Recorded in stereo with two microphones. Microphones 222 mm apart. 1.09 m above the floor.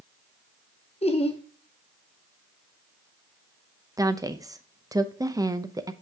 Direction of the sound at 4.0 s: 15° right (ahead or behind).